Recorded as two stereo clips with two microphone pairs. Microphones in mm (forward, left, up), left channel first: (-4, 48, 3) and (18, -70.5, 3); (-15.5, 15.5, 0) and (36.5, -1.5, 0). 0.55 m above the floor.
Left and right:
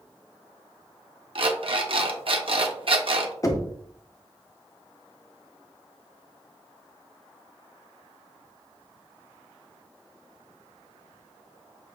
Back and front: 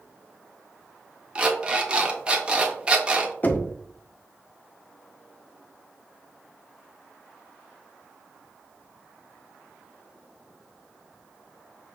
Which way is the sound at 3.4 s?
135° left.